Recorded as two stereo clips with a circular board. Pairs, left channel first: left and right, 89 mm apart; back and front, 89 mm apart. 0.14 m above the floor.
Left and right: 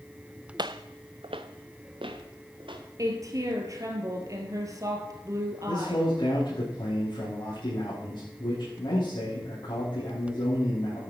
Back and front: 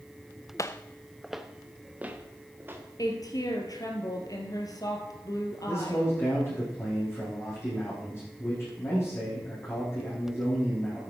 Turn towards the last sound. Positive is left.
turn(degrees=120)